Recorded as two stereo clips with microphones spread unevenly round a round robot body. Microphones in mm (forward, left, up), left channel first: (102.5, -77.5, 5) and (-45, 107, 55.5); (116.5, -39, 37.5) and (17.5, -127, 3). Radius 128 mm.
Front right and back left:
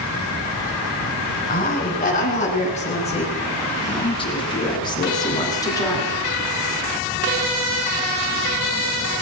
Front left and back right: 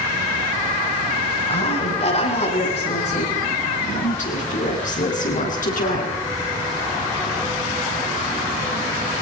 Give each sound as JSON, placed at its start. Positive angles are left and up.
{"t": 1.5, "sound": "a woman speaking", "azimuth_deg": 5, "distance_m": 9.5}